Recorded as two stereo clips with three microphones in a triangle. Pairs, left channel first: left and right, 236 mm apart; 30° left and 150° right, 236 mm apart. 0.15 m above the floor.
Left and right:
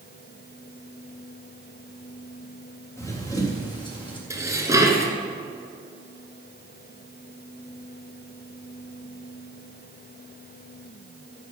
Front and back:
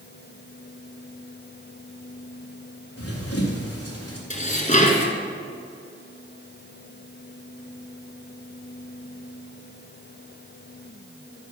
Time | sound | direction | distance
3.0 | running footsteps | 10° left | 3.5 m
4.3 | dishes clattering | 20° right | 1.5 m